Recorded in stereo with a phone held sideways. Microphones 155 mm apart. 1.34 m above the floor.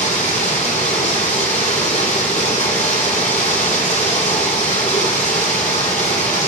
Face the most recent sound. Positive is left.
turn(degrees=50)  # may be behind; listen again after turning